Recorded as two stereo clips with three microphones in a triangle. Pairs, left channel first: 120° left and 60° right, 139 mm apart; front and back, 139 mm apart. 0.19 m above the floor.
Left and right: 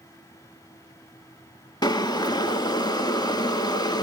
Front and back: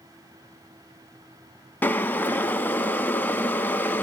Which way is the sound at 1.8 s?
75° left.